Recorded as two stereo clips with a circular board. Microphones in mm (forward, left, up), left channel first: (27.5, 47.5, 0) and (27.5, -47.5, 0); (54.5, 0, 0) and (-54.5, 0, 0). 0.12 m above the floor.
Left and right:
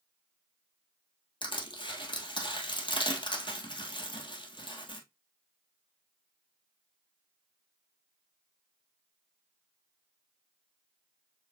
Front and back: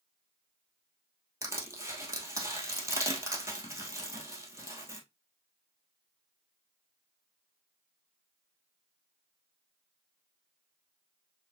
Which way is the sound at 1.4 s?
115° left.